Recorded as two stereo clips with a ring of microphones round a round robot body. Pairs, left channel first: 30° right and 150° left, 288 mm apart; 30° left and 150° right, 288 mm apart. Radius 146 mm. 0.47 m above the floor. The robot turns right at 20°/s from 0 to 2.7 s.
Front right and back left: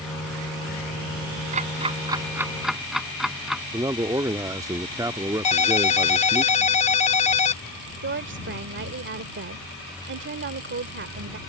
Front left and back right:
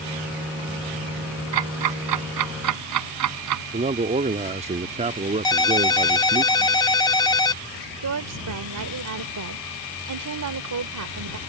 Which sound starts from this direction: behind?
A woman speaking, at 8.0 s.